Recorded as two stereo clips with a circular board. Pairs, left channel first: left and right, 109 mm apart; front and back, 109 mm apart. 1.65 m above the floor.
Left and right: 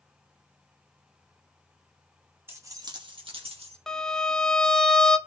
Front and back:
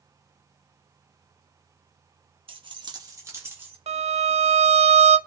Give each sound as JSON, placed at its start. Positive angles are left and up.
{"t": 2.5, "sound": "keys jangling", "azimuth_deg": -155, "distance_m": 1.5}
{"t": 3.9, "sound": "a violin", "azimuth_deg": 175, "distance_m": 0.6}